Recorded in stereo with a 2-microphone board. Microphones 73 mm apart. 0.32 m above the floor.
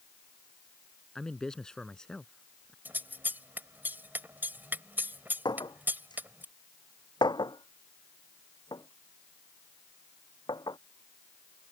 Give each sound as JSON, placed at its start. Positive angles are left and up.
{"t": 1.1, "sound": "a man speaking", "side_deg": 10}
{"t": 2.9, "sound": "scissors", "side_deg": -25}
{"t": 5.5, "sound": "a clink", "side_deg": 75}